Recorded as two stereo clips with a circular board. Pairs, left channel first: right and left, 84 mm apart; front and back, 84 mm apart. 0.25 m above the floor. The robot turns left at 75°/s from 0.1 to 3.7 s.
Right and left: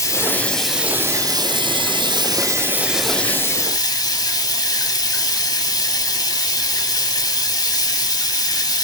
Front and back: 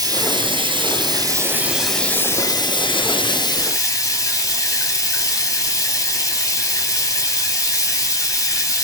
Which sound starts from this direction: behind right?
Running water, at 0.0 s.